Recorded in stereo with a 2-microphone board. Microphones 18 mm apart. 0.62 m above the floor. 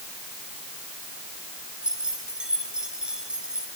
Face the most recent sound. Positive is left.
turn(degrees=-55)  # may be behind; listen again after turning